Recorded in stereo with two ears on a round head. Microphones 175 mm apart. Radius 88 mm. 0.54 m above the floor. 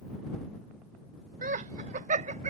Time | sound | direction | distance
1.4 | laughter | 40° right (ahead or behind) | ?